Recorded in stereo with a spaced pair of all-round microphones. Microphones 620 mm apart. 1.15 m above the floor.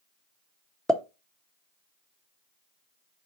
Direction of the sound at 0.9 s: Centre (ahead or behind).